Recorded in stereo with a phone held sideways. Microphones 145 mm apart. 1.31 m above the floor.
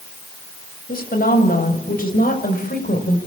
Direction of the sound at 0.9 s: 85° left.